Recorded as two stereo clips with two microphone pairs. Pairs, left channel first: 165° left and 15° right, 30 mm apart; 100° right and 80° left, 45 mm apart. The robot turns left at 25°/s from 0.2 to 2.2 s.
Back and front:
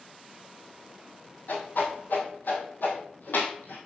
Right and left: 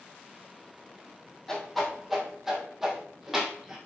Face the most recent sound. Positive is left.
turn(degrees=165)